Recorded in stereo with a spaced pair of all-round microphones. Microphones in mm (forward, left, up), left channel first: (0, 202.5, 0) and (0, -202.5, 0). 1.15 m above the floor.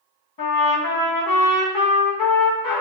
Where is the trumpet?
55° left (ahead or behind), 0.7 m.